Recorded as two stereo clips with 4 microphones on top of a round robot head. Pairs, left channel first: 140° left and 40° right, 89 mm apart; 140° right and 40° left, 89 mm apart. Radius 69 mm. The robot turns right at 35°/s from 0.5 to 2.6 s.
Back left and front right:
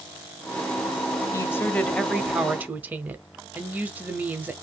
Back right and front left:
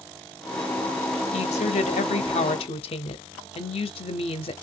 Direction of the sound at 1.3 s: 155° right.